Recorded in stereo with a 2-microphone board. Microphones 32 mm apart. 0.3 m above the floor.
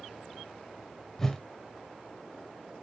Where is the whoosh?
15° left (ahead or behind), 1.0 m.